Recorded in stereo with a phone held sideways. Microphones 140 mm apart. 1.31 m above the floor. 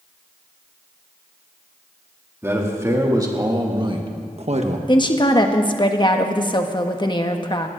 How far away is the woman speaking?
About 1.4 m.